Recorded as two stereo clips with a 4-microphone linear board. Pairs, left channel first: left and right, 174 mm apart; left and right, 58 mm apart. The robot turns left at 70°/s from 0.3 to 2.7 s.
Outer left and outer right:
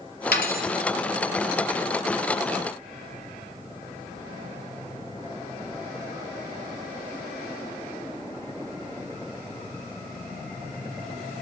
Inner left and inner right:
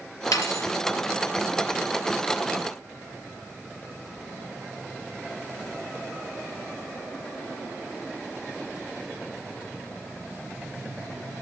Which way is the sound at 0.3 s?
75° left (ahead or behind).